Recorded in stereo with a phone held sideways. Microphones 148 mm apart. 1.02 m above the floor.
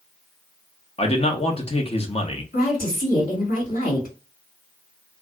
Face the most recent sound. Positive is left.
turn(degrees=65)  # may be behind; listen again after turning